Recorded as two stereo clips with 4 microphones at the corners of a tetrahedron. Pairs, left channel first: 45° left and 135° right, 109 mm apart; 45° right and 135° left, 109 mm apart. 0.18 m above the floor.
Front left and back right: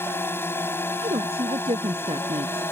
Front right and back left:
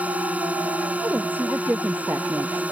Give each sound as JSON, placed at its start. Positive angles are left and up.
{"t": 0.0, "sound": "a drone", "azimuth_deg": 80}
{"t": 1.0, "sound": "a woman speaking", "azimuth_deg": -155}